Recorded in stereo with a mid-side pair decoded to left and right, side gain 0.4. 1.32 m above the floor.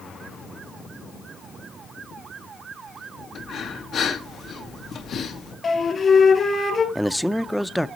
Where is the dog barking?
I don't hear a dog barking.